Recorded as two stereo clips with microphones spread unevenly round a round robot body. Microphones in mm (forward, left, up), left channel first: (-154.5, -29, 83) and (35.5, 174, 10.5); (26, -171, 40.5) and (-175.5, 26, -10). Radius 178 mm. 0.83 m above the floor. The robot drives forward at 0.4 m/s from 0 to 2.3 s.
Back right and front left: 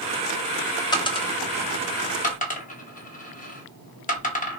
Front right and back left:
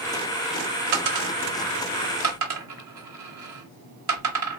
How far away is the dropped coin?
About 0.7 m.